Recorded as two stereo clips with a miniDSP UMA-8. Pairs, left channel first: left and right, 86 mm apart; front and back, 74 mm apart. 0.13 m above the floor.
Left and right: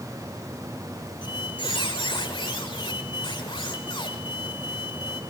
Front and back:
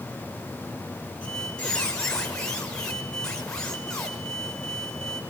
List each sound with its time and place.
1.2 s a squeak: 80° left, 5.5 m